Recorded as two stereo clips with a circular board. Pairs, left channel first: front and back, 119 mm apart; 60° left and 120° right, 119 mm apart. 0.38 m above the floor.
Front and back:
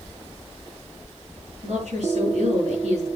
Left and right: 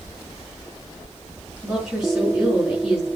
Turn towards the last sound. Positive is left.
turn(degrees=155)